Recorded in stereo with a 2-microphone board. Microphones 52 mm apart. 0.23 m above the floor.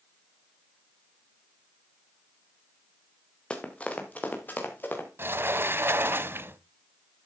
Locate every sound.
3.5 s running footsteps: 20° left (ahead or behind), 2.5 m; by 5.1 s 40° left (ahead or behind), 4 m
5.2 s a sliding door: 45° right (ahead or behind), 0.5 m